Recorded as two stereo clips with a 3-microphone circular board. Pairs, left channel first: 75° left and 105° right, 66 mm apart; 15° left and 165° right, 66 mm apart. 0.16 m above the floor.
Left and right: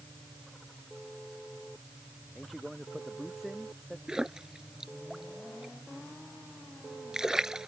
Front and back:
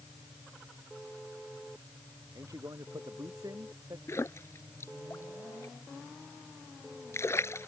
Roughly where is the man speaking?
Behind.